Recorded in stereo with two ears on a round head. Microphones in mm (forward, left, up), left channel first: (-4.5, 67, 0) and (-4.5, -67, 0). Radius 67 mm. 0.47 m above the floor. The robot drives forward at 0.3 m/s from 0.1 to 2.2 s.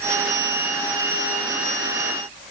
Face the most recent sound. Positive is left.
No sound to turn to.